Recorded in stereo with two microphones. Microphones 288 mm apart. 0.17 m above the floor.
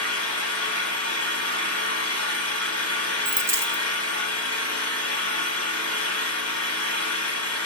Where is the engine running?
55° left (ahead or behind), 1.2 m.